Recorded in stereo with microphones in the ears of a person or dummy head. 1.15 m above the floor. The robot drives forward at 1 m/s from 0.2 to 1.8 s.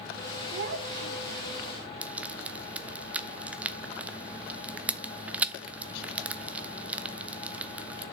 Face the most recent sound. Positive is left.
turn(degrees=-5)  # may be behind; listen again after turning